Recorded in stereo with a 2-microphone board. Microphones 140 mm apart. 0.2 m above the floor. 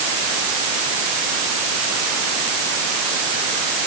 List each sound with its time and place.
Only background noise.